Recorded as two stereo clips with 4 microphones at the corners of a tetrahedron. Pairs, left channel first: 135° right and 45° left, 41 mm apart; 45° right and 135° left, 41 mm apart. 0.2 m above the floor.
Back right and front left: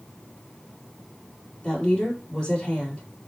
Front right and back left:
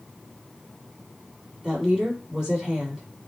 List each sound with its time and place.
1.6 s a woman speaking: 170° right, 1.5 m